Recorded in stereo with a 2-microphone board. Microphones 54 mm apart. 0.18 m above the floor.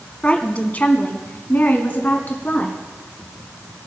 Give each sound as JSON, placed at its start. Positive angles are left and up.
{"t": 0.2, "sound": "a woman speaking", "side_deg": 25, "distance_m": 1.3}